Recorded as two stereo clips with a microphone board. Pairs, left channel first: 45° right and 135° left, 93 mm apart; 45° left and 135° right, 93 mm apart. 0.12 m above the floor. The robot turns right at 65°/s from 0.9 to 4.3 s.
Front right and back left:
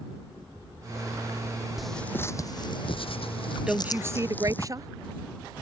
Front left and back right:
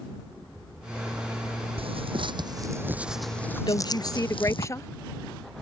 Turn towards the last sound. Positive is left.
turn(degrees=95)